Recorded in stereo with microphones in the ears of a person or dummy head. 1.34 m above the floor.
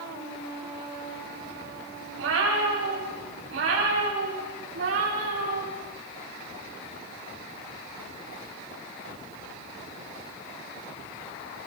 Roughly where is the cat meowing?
Right.